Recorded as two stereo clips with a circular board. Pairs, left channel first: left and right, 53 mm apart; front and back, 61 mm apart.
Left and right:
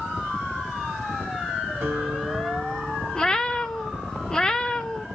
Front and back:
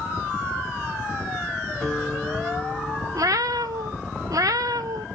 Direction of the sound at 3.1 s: 165° left.